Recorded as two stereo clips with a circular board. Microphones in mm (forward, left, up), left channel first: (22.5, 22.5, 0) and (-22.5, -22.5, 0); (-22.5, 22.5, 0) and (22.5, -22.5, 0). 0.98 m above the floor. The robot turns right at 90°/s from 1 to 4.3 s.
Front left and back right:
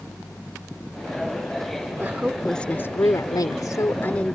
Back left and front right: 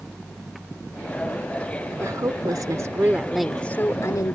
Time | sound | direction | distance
2.0 | a woman speaking | 85° right | ?